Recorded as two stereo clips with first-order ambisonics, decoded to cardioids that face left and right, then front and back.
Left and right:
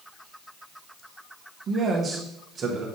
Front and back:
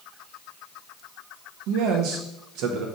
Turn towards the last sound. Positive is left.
turn(degrees=-155)